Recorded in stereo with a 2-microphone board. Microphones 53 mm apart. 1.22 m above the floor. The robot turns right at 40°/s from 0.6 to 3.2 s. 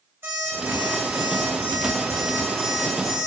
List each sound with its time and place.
0.2 s an alarm clock: 125° right, 2.5 m; by 3.3 s 25° right, 2.5 m